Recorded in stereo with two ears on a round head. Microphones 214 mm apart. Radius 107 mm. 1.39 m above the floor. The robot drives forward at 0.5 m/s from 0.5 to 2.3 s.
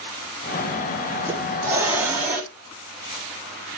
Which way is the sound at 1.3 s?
10° right (ahead or behind).